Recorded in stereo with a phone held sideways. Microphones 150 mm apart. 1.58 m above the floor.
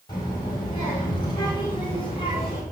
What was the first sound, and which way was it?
A child speaking, 30° left (ahead or behind).